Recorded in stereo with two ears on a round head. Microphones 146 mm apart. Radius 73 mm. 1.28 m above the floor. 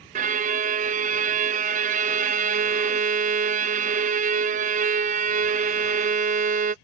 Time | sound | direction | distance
0.1 | a violin | 50° right (ahead or behind) | ?